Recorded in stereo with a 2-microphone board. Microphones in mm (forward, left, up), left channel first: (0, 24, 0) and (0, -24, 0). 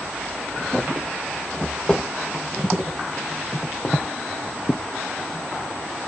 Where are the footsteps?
20° left (ahead or behind), 4.5 m; by 4.8 s 40° left (ahead or behind), 1.7 m.